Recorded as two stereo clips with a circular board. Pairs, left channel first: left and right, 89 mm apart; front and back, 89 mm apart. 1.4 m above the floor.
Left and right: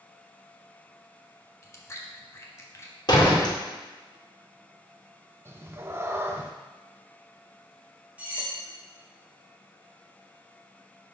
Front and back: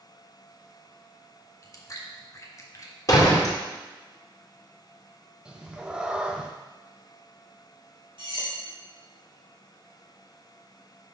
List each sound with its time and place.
1.6 s chewing: 40° left, 0.9 m
3.1 s a door slam: 50° left, 1.7 m
5.5 s a cat meowing: 110° right, 0.6 m
8.2 s cutlery clinking: 165° right, 2.5 m